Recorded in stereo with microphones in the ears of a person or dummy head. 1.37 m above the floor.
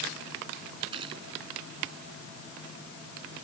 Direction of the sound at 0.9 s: 30° right (ahead or behind).